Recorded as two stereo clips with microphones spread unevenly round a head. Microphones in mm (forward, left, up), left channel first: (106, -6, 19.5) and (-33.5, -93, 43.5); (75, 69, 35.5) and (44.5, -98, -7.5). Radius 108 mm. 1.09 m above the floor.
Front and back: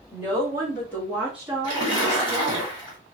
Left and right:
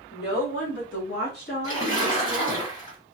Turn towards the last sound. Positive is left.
turn(degrees=135)